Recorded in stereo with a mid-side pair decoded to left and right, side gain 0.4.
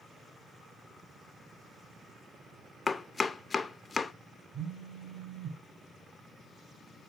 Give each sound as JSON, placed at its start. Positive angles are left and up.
{"t": 2.9, "sound": "chopping", "azimuth_deg": 30, "distance_m": 0.8}
{"t": 4.5, "sound": "a phone buzzing", "azimuth_deg": -30, "distance_m": 4.0}